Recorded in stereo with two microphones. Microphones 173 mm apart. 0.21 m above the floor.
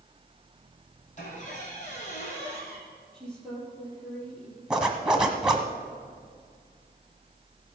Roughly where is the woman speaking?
Centre.